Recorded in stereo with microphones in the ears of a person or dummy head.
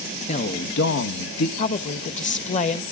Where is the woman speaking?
40° left (ahead or behind), 1.0 m.